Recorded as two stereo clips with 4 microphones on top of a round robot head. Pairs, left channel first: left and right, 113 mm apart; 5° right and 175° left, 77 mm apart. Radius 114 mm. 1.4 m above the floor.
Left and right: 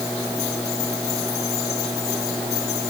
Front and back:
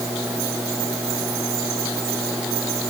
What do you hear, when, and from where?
Only background noise.